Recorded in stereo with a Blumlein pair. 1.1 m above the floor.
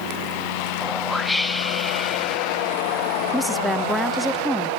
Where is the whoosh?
5° left, 0.9 m.